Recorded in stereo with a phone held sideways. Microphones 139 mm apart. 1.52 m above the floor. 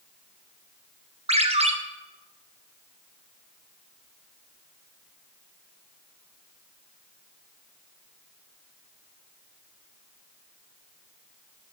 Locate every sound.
1.3 s a ringtone: 50° right (ahead or behind), 0.7 m